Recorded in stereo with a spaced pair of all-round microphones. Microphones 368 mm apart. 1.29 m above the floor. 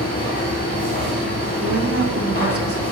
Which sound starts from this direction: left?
A machine running, at 0.0 s.